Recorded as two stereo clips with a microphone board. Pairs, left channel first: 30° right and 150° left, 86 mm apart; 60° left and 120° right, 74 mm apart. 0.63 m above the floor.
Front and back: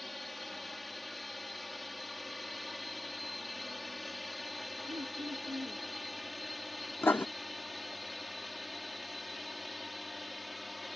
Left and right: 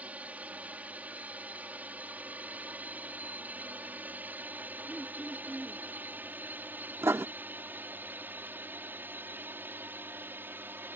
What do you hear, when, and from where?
0.0 s a drone: 115° right; by 11.0 s 120° right
4.9 s throat clearing: 160° left
7.0 s writing: 85° right